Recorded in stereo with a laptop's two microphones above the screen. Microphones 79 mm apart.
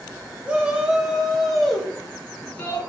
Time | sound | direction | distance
0.4 | a shout | 15° right (ahead or behind) | 4 m